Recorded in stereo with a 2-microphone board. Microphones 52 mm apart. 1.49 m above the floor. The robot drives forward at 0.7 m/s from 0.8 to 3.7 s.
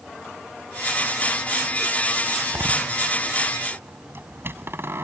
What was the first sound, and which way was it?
A door slam, 45° right (ahead or behind).